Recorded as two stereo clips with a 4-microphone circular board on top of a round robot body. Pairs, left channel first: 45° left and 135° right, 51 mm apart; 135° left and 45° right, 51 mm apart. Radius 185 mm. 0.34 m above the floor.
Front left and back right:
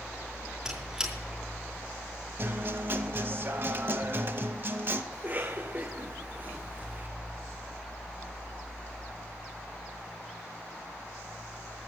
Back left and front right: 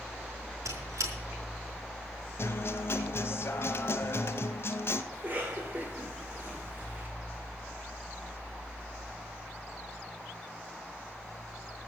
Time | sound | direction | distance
0.7 | a squeak | 60° right | 4.5 m
2.4 | a guitar | straight behind | 0.7 m
5.1 | a cough | 90° right | 2 m